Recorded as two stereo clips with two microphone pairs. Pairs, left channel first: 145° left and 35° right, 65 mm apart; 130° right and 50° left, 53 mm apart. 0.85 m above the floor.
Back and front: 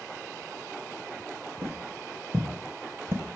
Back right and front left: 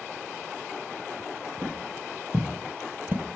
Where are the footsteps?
20° left, 3 m; by 3.2 s 10° left, 1.1 m.